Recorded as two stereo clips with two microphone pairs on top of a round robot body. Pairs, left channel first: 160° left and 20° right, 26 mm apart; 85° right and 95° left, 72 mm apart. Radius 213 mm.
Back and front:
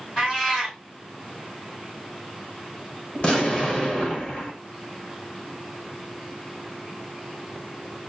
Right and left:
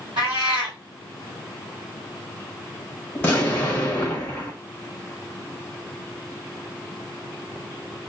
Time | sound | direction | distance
0.2 | a cat meowing | 110° left | 1.1 m
3.1 | an explosion | 150° right | 0.8 m